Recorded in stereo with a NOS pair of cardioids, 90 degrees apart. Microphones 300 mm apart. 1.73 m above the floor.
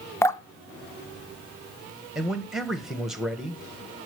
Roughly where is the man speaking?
Ahead.